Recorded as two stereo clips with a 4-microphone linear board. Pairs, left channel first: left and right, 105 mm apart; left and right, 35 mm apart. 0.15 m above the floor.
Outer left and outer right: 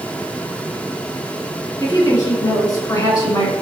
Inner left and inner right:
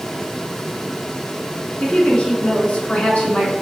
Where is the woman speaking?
35° left (ahead or behind), 1.4 m.